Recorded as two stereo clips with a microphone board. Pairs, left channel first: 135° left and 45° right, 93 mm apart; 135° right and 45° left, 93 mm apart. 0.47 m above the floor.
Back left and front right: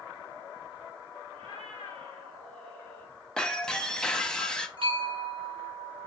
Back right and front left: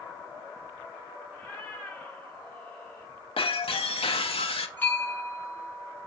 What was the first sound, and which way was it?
A cat meowing, 55° right.